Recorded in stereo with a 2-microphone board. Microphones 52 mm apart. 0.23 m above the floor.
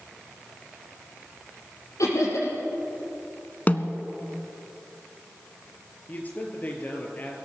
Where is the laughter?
80° left, 5.5 m.